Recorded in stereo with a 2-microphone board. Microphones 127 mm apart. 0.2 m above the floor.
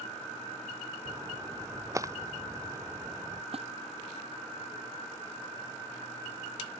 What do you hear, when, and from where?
1.1 s a splash: 25° right (ahead or behind)
3.5 s a splash: 50° right (ahead or behind)